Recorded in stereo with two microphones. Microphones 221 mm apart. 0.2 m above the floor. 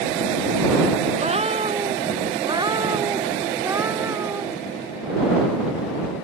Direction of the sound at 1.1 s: 30° right (ahead or behind).